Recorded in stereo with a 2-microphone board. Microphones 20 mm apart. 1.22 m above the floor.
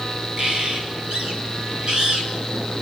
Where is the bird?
45° right (ahead or behind), 5 m.